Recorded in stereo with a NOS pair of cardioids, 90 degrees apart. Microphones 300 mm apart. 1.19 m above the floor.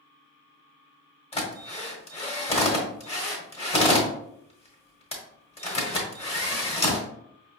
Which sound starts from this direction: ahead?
A drill, at 1.3 s.